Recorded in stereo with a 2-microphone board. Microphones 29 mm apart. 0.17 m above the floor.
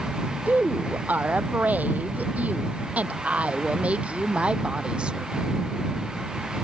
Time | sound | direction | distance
0.5 | a woman speaking | 80° right | ?